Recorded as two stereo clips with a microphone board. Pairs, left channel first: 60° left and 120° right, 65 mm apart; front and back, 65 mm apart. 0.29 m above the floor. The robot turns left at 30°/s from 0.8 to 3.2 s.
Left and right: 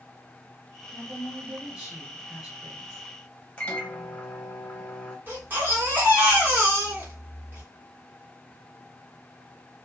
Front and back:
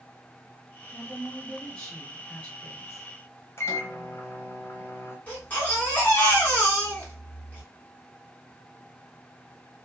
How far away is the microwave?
About 0.8 m.